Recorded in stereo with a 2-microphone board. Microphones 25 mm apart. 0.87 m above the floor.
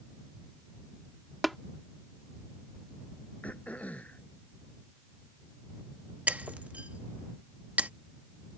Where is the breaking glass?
65° right (ahead or behind).